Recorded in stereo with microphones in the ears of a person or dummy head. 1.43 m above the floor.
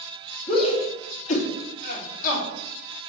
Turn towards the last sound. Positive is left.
turn(degrees=45)  # may be behind; listen again after turning